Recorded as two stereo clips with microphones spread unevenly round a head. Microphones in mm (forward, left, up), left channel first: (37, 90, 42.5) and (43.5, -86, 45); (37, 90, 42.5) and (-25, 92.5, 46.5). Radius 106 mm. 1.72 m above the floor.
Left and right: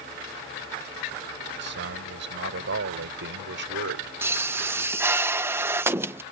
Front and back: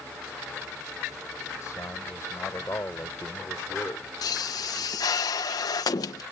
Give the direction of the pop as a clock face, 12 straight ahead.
12 o'clock.